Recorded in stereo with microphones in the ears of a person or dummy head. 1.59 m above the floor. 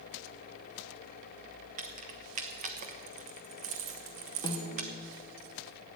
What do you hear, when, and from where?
1.8 s keys jangling: 45° right (ahead or behind), 1.1 m
4.4 s a snare drum: 20° left (ahead or behind), 1.4 m